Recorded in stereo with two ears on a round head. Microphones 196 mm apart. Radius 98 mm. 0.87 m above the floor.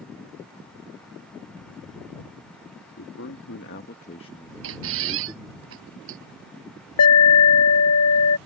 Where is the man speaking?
65° left (ahead or behind); by 5.6 s 25° right (ahead or behind).